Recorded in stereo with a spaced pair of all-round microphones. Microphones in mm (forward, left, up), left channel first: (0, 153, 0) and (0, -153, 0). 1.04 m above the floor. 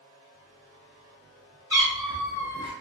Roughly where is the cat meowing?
Centre.